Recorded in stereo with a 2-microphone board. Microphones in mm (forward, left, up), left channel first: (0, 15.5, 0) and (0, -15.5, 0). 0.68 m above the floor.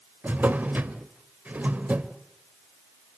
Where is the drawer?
60° right (ahead or behind), 1.3 m.